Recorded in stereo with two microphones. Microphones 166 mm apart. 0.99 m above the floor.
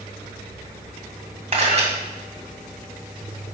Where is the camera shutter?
45° right (ahead or behind), 2 m.